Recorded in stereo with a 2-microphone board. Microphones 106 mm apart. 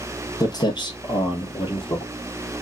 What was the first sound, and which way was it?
Footsteps, 35° left (ahead or behind).